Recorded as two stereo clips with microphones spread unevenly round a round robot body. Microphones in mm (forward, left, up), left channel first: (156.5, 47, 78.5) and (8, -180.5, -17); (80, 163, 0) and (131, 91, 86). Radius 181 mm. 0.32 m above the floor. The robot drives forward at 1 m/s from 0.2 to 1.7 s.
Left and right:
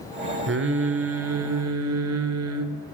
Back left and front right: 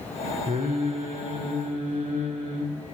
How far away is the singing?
About 4 m.